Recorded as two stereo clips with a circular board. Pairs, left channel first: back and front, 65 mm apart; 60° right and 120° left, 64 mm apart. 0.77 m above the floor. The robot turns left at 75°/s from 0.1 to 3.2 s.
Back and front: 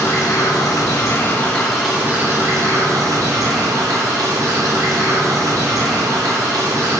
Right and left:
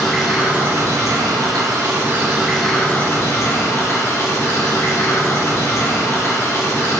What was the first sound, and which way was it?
Running water, 145° right.